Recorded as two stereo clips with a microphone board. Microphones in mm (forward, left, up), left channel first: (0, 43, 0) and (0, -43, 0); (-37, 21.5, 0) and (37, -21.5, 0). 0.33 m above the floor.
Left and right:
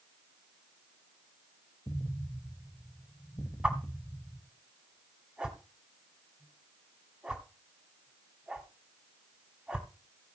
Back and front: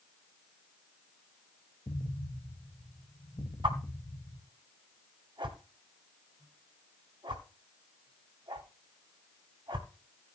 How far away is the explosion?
About 1.6 m.